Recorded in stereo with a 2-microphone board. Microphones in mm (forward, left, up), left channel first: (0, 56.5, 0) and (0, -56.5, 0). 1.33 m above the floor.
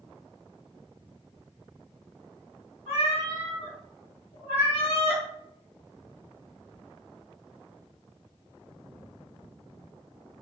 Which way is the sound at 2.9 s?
60° left (ahead or behind).